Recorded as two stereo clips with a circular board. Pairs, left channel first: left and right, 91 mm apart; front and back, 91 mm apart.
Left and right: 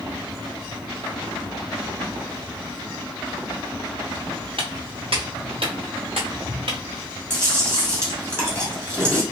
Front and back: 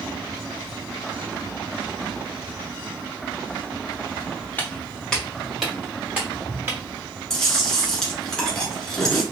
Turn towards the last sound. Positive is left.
turn(degrees=-80)